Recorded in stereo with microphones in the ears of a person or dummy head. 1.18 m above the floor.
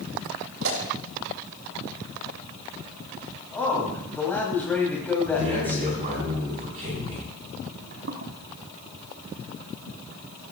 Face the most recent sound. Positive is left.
turn(degrees=-60)  # may be behind; listen again after turning